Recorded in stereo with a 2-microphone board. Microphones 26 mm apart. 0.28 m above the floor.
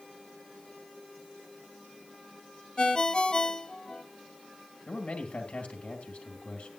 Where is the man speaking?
50° left (ahead or behind), 2 m.